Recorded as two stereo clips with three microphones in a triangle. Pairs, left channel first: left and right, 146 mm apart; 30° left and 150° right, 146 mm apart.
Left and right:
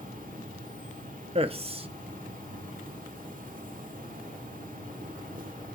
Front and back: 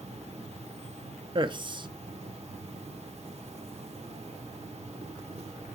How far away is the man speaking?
About 0.7 m.